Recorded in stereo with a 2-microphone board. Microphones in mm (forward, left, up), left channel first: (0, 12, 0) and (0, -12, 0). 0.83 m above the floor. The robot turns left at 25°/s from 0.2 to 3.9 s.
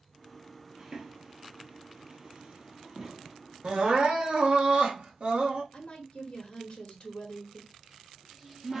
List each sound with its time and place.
0.8 s footsteps: 25° right (ahead or behind), 1.1 m; by 3.4 s 15° right (ahead or behind), 1.7 m
3.6 s crying: 45° right (ahead or behind), 1.3 m; by 5.6 s 50° right (ahead or behind), 1.3 m
5.7 s a woman speaking: 55° left (ahead or behind), 1.5 m
7.7 s a cupboard door: 15° right (ahead or behind), 1.3 m